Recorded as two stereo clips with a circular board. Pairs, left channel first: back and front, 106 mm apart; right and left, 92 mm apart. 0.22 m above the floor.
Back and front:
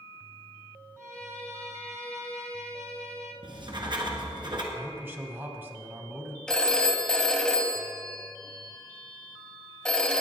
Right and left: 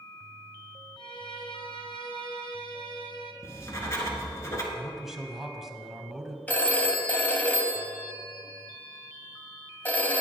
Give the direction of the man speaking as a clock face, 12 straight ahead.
12 o'clock.